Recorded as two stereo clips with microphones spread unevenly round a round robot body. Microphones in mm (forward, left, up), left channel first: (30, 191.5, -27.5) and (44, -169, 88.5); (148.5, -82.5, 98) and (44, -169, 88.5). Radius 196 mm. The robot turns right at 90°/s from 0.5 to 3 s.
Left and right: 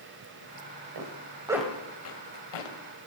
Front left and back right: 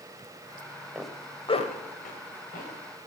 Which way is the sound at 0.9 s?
60° right.